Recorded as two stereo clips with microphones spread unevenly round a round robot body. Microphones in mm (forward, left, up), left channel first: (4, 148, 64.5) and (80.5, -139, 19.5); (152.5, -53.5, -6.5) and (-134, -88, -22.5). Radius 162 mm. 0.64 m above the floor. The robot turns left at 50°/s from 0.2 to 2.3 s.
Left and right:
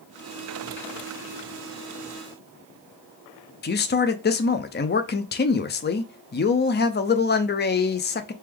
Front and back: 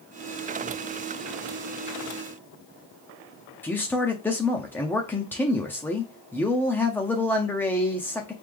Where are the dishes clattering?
No dishes clattering in this recording.